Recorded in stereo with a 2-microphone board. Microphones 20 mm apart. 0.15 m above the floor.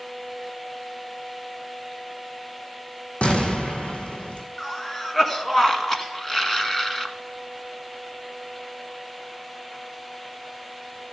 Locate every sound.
3.2 s an explosion: 75° left (ahead or behind), 1.7 m
4.6 s a cough: 25° left (ahead or behind), 1.3 m